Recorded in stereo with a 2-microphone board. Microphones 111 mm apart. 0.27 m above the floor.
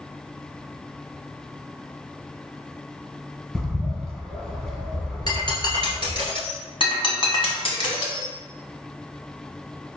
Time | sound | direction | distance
3.5 | a bird | 5° left (ahead or behind) | 0.9 m
5.3 | breaking glass | 40° left (ahead or behind) | 1.6 m
6.8 | breaking glass | 50° left (ahead or behind) | 1.3 m